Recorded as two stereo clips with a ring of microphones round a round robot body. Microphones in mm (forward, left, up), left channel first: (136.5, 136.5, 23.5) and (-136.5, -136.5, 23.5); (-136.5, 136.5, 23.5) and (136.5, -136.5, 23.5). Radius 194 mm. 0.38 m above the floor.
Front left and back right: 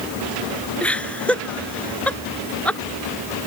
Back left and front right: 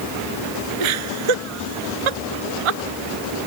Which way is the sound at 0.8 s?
40° right.